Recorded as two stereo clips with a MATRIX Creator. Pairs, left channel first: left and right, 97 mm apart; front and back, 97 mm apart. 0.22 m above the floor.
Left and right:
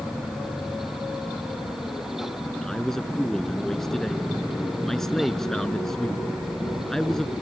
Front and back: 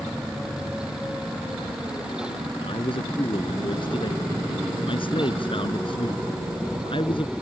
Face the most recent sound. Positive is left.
turn(degrees=5)